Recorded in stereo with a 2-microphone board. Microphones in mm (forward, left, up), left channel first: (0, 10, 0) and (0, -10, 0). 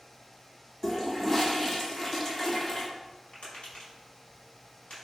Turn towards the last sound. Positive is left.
turn(degrees=80)